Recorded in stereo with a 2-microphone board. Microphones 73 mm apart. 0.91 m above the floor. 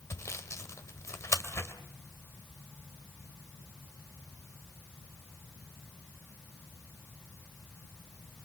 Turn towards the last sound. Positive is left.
turn(degrees=45)  # may be behind; listen again after turning